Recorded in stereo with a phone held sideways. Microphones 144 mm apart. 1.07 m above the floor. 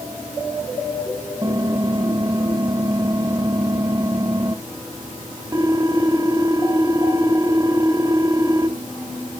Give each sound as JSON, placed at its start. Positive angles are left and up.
{"t": 1.4, "sound": "typing on a keyboard", "side_deg": -25, "distance_m": 1.3}